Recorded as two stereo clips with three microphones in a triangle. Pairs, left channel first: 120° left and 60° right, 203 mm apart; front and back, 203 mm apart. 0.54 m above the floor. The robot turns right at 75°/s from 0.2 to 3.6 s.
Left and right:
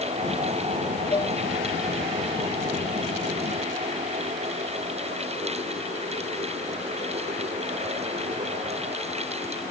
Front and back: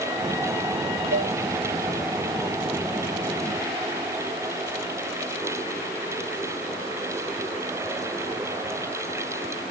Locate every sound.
1.1 s dishes clattering: 175° right; by 1.4 s 155° right